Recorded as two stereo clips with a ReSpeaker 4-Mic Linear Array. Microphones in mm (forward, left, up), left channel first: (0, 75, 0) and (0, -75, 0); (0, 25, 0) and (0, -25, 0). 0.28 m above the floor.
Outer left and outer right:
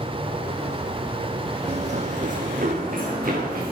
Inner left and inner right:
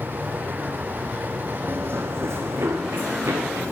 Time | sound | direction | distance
1.7 | running footsteps | 50° right (ahead or behind) | 0.5 m